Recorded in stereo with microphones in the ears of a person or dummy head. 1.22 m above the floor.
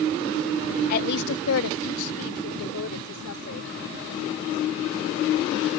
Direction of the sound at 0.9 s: 40° left (ahead or behind).